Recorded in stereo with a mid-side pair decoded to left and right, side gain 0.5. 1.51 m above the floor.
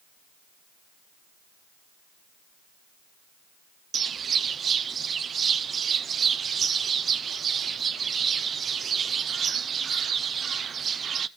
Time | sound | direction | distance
3.9 | a bird | 45° right | 0.6 m